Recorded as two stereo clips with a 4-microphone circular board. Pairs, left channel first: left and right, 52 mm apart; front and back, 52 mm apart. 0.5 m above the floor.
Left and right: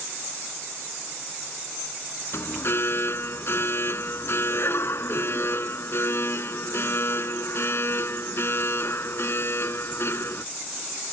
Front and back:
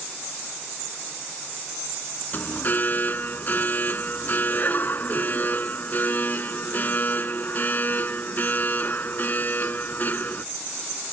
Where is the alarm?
50° left.